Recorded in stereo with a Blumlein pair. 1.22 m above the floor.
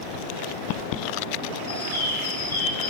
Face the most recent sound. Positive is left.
turn(degrees=60)